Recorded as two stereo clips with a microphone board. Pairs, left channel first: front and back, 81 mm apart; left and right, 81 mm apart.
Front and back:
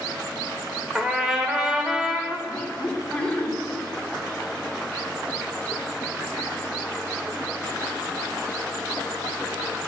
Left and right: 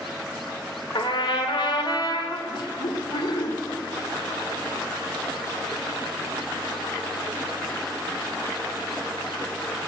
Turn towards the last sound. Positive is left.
turn(degrees=75)